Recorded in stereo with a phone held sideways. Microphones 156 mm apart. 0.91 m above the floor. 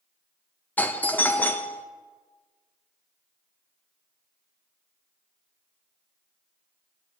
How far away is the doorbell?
About 0.6 m.